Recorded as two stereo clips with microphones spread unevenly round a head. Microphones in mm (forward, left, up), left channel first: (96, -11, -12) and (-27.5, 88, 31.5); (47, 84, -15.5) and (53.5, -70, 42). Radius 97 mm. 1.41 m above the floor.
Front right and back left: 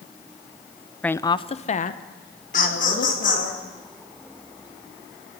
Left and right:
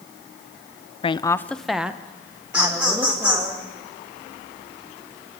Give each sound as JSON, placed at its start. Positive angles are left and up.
{"t": 1.0, "sound": "a woman speaking", "azimuth_deg": 45, "distance_m": 0.7}
{"t": 2.5, "sound": "laughter", "azimuth_deg": -5, "distance_m": 5.5}